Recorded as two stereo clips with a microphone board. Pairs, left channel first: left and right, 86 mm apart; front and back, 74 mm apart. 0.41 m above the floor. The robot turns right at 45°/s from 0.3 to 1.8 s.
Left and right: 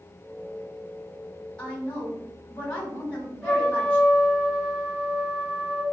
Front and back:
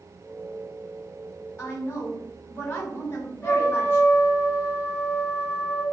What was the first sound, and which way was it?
A woman speaking, 15° left.